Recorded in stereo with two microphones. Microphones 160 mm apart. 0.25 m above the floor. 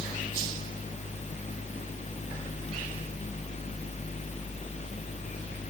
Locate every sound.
Only background noise.